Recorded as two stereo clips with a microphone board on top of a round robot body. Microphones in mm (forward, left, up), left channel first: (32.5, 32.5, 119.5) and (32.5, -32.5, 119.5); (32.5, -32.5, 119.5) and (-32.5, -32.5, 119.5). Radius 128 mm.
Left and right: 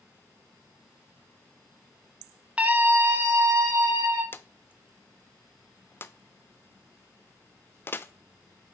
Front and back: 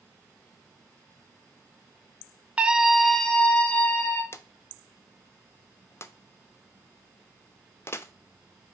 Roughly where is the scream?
Behind right.